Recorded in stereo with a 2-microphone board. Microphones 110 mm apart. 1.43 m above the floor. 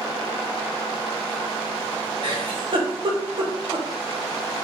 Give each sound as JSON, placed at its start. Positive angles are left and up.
{"t": 2.2, "sound": "a giggle", "side_deg": -55, "distance_m": 1.0}